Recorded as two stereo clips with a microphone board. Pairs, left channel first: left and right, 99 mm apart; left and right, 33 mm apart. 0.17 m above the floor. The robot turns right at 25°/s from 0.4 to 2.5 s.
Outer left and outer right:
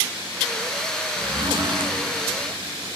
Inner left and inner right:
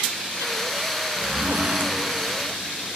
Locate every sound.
1.2 s a zipper: 50° right (ahead or behind), 0.8 m; by 1.9 s 60° right (ahead or behind), 0.8 m